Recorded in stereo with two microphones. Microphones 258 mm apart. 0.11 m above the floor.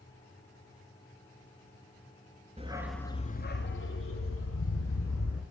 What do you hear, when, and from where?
2.6 s a dog barking: 25° right (ahead or behind), 0.6 m; by 5.4 s 60° left (ahead or behind), 2 m